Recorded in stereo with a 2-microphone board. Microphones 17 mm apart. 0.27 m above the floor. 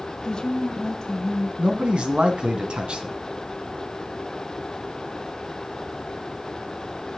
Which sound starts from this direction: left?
A woman speaking, at 0.2 s.